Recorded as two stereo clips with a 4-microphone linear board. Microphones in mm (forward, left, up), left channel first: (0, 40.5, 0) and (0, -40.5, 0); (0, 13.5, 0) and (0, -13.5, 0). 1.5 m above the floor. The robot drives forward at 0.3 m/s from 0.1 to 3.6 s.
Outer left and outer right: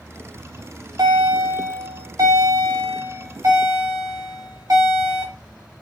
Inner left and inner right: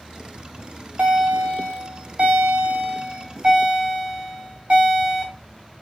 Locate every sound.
0.4 s a bell: 55° right (ahead or behind), 2 m; by 5.3 s 45° right (ahead or behind), 2.5 m